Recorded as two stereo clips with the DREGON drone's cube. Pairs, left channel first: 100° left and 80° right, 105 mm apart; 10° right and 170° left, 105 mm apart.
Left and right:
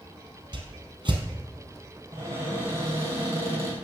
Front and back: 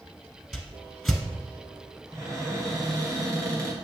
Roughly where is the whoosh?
Right.